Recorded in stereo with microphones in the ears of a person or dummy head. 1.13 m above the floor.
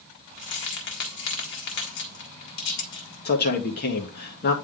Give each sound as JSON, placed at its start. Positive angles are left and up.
{"t": 0.4, "sound": "keys jangling", "side_deg": 65, "distance_m": 1.9}
{"t": 3.2, "sound": "a man speaking", "side_deg": 55, "distance_m": 1.3}